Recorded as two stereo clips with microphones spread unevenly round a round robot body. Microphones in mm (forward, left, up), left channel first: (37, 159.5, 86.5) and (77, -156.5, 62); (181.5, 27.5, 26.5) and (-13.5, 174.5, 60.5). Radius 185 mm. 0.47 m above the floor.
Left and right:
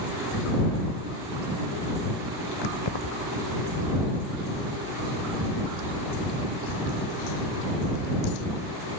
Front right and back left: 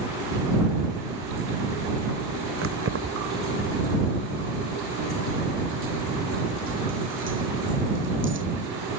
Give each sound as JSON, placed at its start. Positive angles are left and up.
{"t": 2.6, "sound": "keys jangling", "azimuth_deg": 110}